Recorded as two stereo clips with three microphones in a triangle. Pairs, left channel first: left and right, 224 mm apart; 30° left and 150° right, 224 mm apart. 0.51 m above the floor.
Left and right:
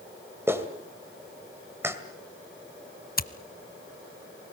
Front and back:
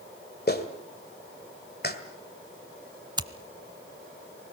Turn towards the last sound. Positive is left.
turn(degrees=140)